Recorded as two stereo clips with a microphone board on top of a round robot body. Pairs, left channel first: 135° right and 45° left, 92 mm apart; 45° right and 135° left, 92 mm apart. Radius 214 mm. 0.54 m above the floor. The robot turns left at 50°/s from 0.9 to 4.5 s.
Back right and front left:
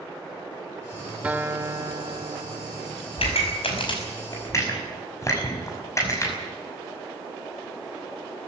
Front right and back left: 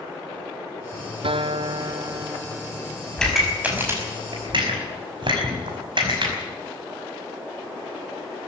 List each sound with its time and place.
1.2 s a guitar: 120° left, 1.0 m; by 3.0 s 30° left, 1.0 m
3.2 s a pop: 125° right, 5.5 m; by 6.3 s 170° left, 5.5 m